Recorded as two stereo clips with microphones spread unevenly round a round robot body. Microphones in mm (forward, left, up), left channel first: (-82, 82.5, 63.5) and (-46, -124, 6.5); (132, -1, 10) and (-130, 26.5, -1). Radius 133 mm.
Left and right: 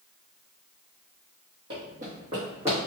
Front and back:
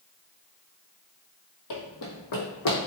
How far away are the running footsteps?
About 0.8 m.